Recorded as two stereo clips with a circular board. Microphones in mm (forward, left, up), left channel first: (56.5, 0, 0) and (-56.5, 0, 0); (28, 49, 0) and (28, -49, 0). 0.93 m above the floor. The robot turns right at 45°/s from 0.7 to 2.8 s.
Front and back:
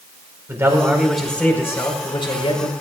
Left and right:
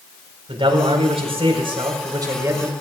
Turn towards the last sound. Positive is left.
turn(degrees=-15)